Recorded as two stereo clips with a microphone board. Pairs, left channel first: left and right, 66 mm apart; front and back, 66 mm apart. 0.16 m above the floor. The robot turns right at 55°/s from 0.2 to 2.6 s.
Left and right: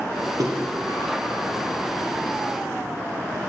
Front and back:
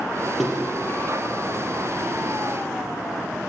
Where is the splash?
90° right, 3.5 m; by 1.1 s 50° right, 3.5 m.